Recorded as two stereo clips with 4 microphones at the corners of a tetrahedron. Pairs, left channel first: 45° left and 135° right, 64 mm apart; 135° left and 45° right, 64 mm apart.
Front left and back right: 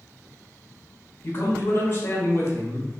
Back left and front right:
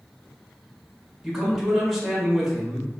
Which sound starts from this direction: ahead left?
A man speaking, at 1.2 s.